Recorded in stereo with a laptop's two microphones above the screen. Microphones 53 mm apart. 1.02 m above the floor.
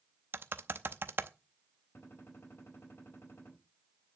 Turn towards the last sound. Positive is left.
turn(degrees=45)  # may be behind; listen again after turning